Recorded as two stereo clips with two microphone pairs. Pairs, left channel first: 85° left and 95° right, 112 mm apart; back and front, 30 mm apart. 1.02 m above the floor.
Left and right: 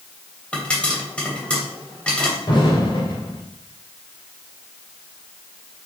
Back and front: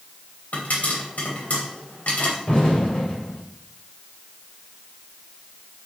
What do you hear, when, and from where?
0.5 s a pop: 160° left, 3 m
2.5 s an explosion: 130° left, 3.5 m